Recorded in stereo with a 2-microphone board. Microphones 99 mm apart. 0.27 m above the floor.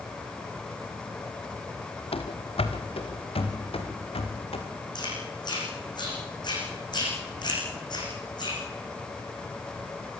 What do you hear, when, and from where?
2.1 s running footsteps: 75° left (ahead or behind), 2.5 m
5.0 s chewing: 50° left (ahead or behind), 9.5 m